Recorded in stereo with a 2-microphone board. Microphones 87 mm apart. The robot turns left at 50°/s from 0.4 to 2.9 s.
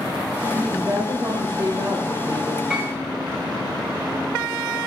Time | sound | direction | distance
0.5 | a woman speaking | 25° right | 1.8 m
2.7 | a piano | 10° right (ahead or behind) | 4.5 m